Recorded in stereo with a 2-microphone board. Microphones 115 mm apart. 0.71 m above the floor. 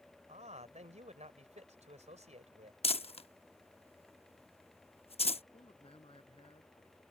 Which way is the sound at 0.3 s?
75° right (ahead or behind).